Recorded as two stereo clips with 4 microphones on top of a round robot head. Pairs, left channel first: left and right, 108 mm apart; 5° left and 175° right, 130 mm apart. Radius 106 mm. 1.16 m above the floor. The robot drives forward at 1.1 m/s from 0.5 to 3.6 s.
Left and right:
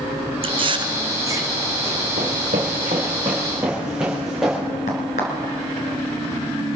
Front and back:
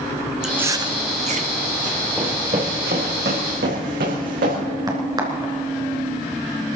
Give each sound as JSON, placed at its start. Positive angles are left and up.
{"t": 0.4, "sound": "chewing", "azimuth_deg": -95, "distance_m": 0.7}
{"t": 2.2, "sound": "running footsteps", "azimuth_deg": -95, "distance_m": 2.0}
{"t": 4.9, "sound": "a crack", "azimuth_deg": 125, "distance_m": 2.5}